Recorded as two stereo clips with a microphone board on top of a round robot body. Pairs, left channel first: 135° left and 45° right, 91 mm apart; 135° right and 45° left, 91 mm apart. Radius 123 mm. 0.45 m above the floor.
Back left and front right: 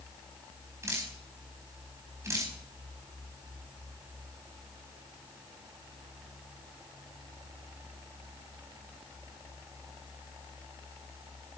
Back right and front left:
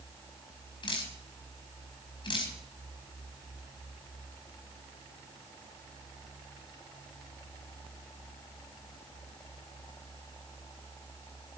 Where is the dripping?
105° right, 4.5 m.